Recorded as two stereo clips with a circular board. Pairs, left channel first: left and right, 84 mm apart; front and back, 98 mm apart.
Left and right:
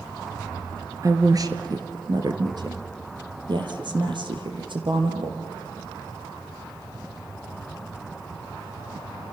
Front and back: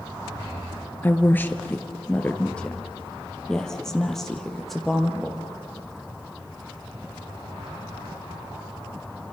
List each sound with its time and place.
1.0 s a woman speaking: 60° right, 1.7 m; by 5.4 s 90° right, 3.5 m